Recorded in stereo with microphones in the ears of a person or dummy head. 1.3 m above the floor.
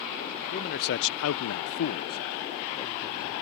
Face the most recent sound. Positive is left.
turn(degrees=15)  # may be behind; listen again after turning